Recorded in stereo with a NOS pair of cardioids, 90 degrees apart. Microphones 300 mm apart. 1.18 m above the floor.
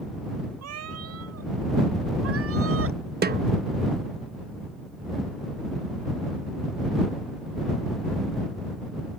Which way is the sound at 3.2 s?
35° right.